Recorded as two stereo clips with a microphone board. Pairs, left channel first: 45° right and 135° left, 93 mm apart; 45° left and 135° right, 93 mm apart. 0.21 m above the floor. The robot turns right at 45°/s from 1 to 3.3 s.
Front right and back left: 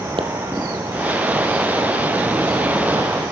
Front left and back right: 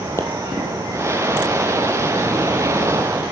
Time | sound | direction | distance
0.2 | a pop | 110° left | 2.5 m